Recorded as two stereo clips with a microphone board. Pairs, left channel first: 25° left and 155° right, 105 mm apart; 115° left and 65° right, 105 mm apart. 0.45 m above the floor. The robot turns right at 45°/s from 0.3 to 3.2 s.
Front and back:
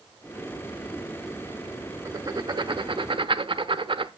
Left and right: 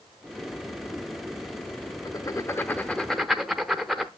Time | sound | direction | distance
2.0 | writing | 150° left | 0.8 m